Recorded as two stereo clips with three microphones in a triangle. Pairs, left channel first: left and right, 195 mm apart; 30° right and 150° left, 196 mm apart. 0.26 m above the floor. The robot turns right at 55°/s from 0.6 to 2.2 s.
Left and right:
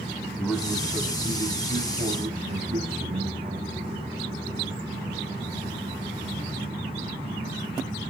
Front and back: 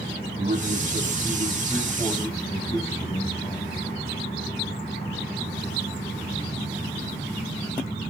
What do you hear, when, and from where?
0.4 s a man speaking: 175° right, 2 m; by 3.8 s 85° right, 2 m